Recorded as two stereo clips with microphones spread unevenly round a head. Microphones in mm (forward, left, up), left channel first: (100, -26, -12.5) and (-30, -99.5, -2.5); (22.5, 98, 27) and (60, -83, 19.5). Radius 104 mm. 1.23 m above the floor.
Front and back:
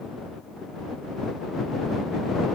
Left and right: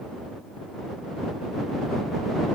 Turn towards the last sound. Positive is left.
No sound to turn to.